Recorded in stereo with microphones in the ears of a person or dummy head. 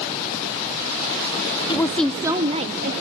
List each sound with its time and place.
1.7 s a woman speaking: 20° left (ahead or behind), 0.6 m; by 2.9 s 45° right (ahead or behind), 0.9 m